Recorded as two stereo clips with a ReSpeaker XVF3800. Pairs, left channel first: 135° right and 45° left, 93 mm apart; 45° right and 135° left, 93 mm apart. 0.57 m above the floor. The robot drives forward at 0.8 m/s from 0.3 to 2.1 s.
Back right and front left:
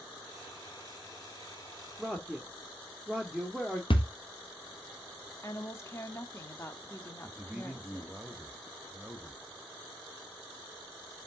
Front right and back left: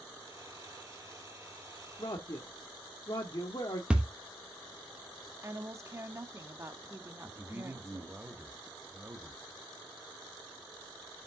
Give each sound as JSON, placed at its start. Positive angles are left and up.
{"t": 2.0, "sound": "a man speaking", "azimuth_deg": -50, "distance_m": 1.1}
{"t": 3.9, "sound": "a thud", "azimuth_deg": -145, "distance_m": 1.2}
{"t": 5.4, "sound": "a woman speaking", "azimuth_deg": 180, "distance_m": 1.0}
{"t": 7.2, "sound": "a man speaking", "azimuth_deg": 105, "distance_m": 1.0}